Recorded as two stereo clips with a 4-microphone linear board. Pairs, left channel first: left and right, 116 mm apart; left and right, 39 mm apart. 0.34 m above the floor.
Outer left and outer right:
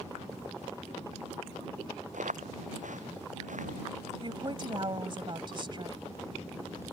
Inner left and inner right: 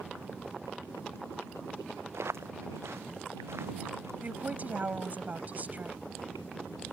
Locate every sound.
2.1 s footsteps: 85° right; by 4.1 s 80° right
4.2 s a woman speaking: 40° right (ahead or behind)